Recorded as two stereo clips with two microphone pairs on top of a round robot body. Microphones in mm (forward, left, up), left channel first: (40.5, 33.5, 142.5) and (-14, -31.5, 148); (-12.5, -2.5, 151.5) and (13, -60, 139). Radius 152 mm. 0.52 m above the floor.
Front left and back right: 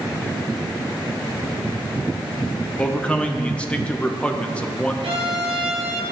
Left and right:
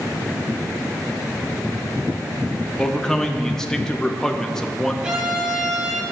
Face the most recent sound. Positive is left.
turn(degrees=-140)